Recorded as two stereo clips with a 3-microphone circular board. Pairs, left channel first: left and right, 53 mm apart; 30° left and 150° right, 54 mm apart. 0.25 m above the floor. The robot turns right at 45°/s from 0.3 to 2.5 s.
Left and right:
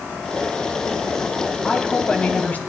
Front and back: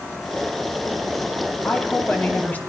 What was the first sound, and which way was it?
A woman speaking, 15° left.